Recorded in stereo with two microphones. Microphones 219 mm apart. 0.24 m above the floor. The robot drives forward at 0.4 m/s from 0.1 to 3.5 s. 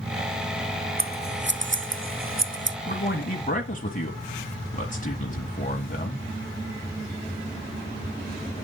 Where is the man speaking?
40° left (ahead or behind), 1.3 m.